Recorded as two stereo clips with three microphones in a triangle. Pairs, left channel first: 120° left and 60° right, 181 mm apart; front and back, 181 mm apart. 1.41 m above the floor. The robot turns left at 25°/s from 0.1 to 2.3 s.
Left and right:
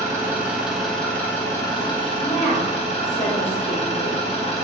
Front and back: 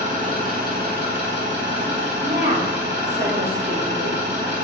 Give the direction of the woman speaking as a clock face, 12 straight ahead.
7 o'clock.